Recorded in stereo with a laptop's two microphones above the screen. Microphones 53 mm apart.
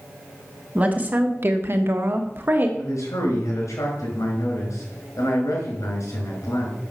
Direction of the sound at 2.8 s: 80° left.